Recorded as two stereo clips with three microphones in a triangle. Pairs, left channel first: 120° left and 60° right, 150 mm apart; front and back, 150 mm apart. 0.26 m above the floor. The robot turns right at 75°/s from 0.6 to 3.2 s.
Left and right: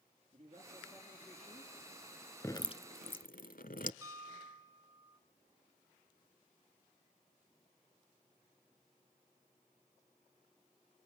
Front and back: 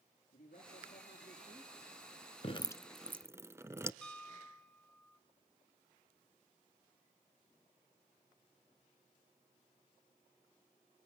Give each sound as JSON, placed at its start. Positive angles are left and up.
{"t": 0.3, "sound": "a man speaking", "azimuth_deg": -20, "distance_m": 5.0}
{"t": 2.4, "sound": "dripping", "azimuth_deg": 50, "distance_m": 0.7}
{"t": 4.0, "sound": "a piano", "azimuth_deg": -70, "distance_m": 1.6}